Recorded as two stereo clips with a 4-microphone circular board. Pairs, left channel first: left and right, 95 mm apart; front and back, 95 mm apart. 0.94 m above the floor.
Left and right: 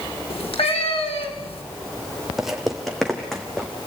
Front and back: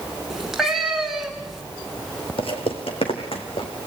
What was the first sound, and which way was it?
A cat meowing, 95° left.